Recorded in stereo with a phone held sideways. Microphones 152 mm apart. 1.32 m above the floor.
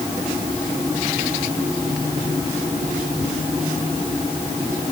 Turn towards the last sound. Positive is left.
No sound to turn to.